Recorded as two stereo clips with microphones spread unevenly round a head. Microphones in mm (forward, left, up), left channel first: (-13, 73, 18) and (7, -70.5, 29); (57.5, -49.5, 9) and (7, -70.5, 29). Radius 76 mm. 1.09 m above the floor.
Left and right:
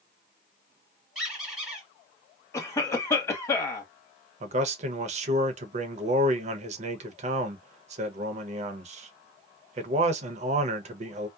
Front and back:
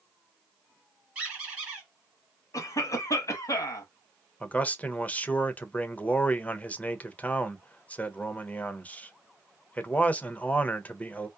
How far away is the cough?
About 1.2 m.